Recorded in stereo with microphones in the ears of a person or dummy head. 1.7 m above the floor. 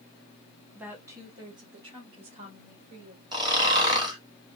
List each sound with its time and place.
0.8 s a woman speaking: 10° right (ahead or behind), 1.6 m; by 3.2 s 40° right (ahead or behind), 4 m
3.3 s snoring: 25° right (ahead or behind), 1.8 m